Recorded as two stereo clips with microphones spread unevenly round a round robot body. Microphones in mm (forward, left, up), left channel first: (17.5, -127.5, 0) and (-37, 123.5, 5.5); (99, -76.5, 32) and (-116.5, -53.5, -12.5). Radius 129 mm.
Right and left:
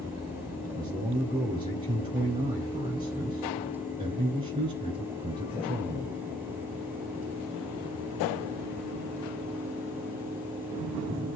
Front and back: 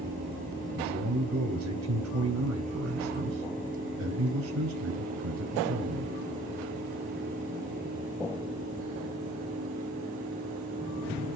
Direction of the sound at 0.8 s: 175° left.